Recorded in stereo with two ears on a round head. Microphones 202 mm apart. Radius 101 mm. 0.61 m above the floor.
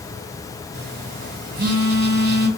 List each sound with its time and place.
0.7 s a phone buzzing: 45° right (ahead or behind), 1.7 m